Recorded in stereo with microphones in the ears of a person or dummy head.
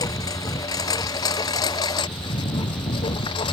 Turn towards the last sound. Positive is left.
turn(degrees=30)  # may be behind; listen again after turning